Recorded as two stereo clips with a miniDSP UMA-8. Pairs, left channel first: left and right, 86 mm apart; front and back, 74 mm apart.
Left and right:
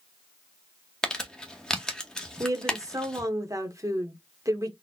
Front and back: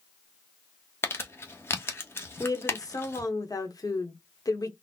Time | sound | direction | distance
1.0 | crumpling | 15° left | 0.8 m
2.4 | a woman speaking | 40° right | 1.1 m